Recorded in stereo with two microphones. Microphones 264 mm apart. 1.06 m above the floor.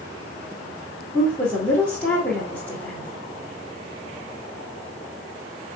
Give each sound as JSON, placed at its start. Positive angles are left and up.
{"t": 1.1, "sound": "a woman speaking", "side_deg": 5, "distance_m": 2.0}